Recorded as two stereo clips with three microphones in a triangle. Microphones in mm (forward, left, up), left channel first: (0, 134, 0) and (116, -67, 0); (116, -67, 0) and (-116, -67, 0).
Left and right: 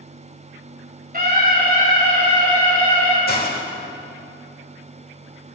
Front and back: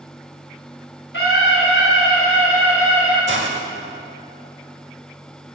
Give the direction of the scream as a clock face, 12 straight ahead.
1 o'clock.